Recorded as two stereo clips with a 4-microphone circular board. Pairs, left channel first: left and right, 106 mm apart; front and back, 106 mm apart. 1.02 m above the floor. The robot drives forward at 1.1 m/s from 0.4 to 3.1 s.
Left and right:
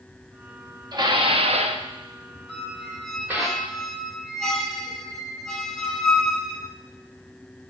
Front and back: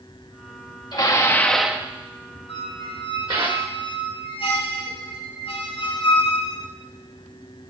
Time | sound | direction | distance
0.9 | dishes clattering | 45° right | 1.1 m
2.5 | a squeak | straight ahead | 3 m